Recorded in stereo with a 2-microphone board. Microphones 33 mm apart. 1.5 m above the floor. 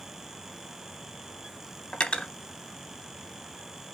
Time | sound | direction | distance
1.9 | cutlery clinking | 35° left (ahead or behind) | 0.8 m